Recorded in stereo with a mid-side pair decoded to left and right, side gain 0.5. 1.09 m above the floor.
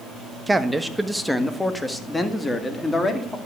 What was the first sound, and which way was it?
A man speaking, 15° right.